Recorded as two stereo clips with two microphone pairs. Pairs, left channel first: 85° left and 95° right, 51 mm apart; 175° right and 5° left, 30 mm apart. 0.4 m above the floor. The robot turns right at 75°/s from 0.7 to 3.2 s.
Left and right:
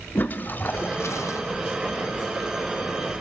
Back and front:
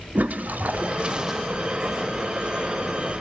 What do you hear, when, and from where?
0.1 s a toilet flushing: 35° left, 0.5 m; by 1.4 s 90° left, 0.5 m